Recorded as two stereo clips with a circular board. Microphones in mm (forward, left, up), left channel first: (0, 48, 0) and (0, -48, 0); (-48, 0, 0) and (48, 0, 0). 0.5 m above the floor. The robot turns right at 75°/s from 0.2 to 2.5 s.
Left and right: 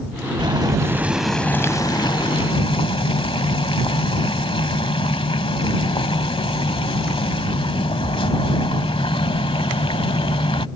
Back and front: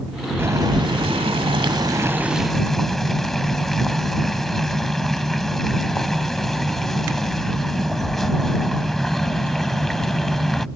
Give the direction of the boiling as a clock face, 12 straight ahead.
2 o'clock.